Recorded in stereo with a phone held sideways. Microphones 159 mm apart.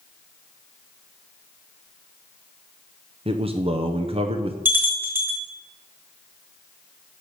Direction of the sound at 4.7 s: 15° right (ahead or behind).